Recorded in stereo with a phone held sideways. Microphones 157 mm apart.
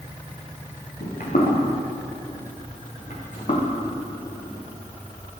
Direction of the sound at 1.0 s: 70° left (ahead or behind).